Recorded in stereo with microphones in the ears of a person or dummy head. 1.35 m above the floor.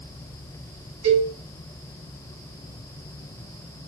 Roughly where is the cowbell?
Right.